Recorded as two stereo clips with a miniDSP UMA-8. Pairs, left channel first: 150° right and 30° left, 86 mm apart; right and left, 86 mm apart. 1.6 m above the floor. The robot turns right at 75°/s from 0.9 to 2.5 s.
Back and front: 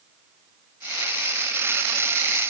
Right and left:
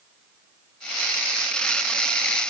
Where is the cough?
I don't hear a cough.